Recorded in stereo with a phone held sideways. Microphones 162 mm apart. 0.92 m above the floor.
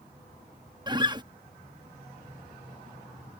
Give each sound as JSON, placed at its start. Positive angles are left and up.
{"t": 0.9, "sound": "a guitar", "side_deg": -25}